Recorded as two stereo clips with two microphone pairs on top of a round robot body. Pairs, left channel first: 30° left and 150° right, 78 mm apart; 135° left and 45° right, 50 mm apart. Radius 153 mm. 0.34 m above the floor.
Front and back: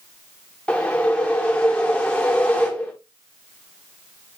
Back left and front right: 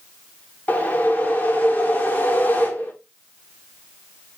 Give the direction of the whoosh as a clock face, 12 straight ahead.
9 o'clock.